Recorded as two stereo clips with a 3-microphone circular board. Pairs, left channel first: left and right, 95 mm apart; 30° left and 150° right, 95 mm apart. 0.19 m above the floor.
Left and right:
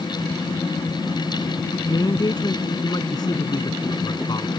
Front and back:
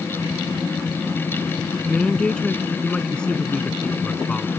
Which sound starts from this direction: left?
A man speaking, at 1.9 s.